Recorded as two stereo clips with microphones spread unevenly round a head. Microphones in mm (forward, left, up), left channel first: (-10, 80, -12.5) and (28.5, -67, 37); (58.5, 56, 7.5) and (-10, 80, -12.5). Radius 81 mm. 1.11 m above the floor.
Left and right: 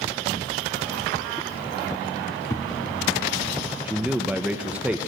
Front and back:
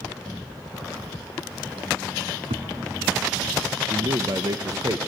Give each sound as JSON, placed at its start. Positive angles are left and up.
{"t": 2.5, "sound": "a thud", "azimuth_deg": 180, "distance_m": 3.5}
{"t": 3.9, "sound": "a man speaking", "azimuth_deg": -165, "distance_m": 0.9}